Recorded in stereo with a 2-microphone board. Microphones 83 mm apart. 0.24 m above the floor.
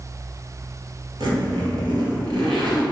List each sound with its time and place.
1.2 s a zipper: 75° right (ahead or behind), 2.5 m